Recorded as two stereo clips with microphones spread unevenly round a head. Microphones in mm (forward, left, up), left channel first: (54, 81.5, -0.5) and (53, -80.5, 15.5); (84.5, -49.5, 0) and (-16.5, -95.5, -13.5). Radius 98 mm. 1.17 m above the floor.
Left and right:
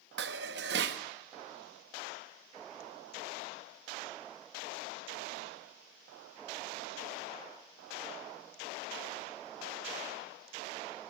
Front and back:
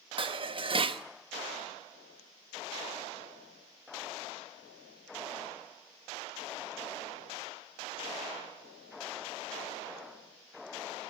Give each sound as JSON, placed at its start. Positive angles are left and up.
{"t": 0.2, "sound": "dishes clattering", "azimuth_deg": -115, "distance_m": 1.0}